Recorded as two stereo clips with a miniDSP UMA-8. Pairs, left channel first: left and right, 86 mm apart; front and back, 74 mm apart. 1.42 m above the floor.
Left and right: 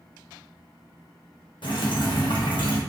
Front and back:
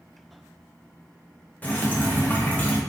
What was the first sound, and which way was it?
Dripping, 65° left.